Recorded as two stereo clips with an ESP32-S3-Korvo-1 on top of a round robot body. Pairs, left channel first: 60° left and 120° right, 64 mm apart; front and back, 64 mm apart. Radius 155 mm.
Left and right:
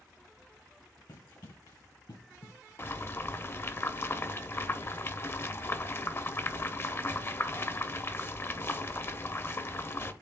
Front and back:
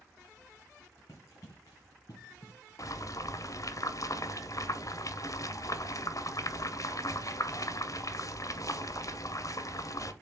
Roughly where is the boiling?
Ahead.